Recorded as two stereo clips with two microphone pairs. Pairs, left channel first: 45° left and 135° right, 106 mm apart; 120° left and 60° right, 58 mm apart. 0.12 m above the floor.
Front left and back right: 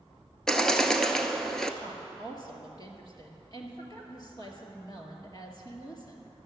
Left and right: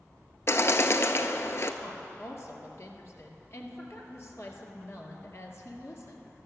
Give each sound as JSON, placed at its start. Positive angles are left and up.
{"t": 0.5, "sound": "a bird", "azimuth_deg": 135, "distance_m": 0.7}
{"t": 1.8, "sound": "a woman speaking", "azimuth_deg": 90, "distance_m": 1.8}